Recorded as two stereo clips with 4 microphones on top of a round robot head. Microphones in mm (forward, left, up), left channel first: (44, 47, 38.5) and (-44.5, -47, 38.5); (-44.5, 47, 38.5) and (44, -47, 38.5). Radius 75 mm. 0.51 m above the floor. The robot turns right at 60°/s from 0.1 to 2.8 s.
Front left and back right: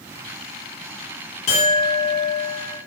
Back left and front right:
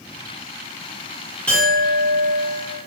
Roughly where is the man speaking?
No man speaking in this recording.